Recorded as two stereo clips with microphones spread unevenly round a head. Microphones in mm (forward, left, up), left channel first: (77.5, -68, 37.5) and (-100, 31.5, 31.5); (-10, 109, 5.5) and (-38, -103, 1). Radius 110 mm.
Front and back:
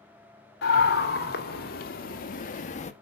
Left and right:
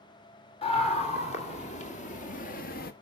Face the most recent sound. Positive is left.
turn(degrees=30)